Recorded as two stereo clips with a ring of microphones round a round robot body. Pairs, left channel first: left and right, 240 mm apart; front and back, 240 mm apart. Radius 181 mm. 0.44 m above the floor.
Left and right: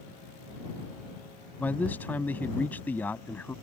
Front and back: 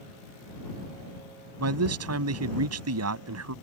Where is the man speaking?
175° left.